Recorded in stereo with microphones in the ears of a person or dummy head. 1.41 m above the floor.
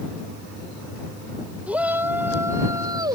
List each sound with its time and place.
1.7 s a shout: 10° right (ahead or behind); by 3.2 s 25° right (ahead or behind)